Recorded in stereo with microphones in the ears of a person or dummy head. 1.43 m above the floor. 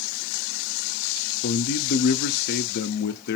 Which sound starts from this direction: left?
A man speaking, at 1.4 s.